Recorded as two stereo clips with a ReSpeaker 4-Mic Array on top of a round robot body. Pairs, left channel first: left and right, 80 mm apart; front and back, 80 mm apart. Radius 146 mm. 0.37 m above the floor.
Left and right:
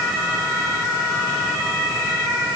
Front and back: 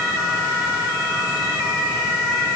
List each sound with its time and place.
Only background noise.